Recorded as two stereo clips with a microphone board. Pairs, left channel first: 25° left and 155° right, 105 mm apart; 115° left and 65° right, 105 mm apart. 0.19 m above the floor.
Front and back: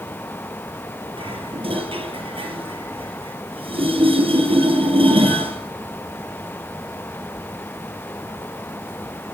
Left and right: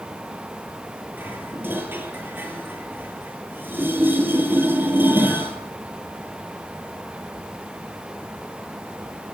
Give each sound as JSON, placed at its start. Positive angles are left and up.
{"t": 1.2, "sound": "dishes clattering", "azimuth_deg": -135, "distance_m": 3.0}